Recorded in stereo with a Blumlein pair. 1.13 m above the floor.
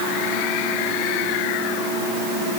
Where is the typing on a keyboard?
No typing on a keyboard in this recording.